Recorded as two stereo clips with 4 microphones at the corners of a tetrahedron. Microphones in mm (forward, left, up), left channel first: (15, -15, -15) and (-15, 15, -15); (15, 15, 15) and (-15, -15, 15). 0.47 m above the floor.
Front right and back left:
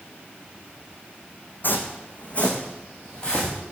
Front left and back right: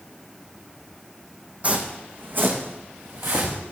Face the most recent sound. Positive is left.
turn(degrees=-120)